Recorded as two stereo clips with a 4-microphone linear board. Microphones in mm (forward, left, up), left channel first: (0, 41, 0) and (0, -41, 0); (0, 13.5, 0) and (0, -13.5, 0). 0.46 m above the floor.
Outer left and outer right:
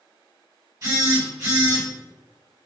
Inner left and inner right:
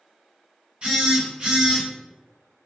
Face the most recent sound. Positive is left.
turn(degrees=-40)  # may be behind; listen again after turning